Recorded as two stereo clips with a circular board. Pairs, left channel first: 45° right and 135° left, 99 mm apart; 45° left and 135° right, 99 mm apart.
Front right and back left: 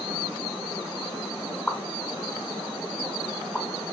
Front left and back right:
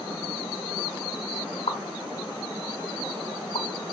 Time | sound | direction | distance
1.7 | a pop | 40° left | 0.9 m